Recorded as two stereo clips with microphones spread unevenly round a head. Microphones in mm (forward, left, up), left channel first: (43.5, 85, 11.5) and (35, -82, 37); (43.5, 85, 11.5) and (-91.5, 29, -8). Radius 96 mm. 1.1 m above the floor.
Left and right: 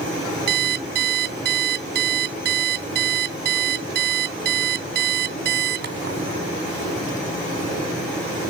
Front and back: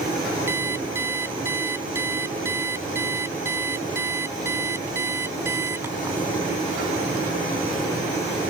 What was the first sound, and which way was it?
An alarm clock, 80° right.